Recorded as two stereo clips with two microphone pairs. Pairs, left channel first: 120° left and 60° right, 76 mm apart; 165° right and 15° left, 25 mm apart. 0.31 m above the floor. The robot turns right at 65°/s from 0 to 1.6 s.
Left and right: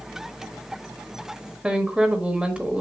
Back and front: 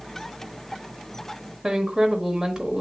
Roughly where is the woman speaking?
Ahead.